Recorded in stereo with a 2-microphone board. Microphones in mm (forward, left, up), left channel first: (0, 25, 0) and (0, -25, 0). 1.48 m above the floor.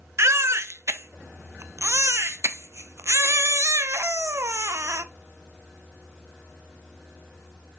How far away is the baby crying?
About 0.7 m.